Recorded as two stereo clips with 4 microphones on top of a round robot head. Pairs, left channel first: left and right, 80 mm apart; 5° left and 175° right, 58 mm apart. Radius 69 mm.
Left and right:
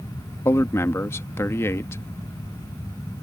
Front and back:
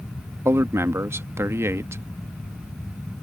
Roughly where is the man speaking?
Behind left.